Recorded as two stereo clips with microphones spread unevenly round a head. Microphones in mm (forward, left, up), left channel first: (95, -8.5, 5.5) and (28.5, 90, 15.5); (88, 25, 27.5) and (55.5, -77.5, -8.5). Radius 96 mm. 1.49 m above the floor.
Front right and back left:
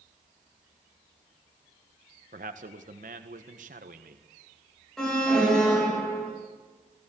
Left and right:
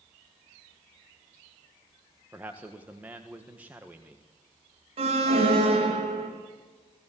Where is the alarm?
145° right, 3.5 m.